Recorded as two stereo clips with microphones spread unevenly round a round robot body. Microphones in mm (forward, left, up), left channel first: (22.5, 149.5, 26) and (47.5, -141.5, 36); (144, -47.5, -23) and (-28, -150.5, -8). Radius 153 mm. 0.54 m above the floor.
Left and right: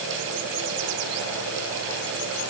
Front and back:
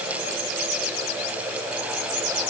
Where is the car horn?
I don't hear a car horn.